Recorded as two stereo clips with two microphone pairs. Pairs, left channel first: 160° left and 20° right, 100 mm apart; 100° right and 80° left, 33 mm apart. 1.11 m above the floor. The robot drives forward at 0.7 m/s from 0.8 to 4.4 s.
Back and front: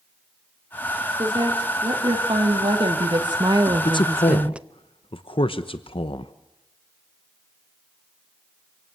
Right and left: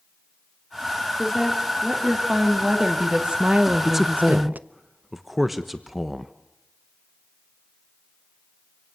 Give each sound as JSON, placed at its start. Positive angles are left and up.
{"t": 1.2, "sound": "a woman speaking", "azimuth_deg": 10, "distance_m": 2.5}
{"t": 3.9, "sound": "a man speaking", "azimuth_deg": 160, "distance_m": 0.6}